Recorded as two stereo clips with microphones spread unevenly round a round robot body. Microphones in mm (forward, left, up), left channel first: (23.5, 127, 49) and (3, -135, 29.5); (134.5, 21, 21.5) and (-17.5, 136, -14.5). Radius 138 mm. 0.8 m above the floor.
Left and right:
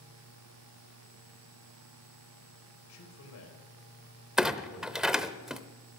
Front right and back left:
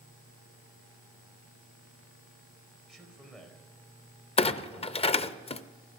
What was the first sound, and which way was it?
A man speaking, 50° left.